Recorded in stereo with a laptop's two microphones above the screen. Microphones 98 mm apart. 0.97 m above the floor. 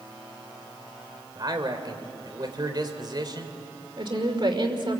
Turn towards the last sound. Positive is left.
turn(degrees=-55)  # may be behind; listen again after turning